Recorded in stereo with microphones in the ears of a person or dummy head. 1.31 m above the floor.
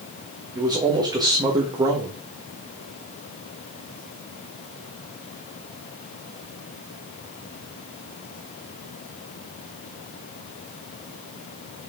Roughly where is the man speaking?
Centre.